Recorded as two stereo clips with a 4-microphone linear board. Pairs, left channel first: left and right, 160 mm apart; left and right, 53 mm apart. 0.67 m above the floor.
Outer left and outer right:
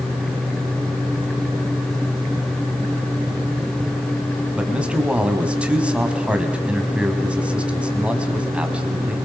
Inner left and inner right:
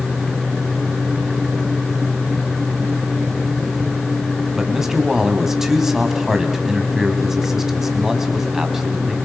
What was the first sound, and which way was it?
A man speaking, 5° right (ahead or behind).